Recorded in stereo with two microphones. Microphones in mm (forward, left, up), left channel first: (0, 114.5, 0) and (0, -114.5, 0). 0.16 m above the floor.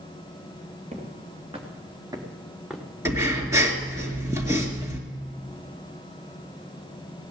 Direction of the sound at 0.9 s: 30° right (ahead or behind).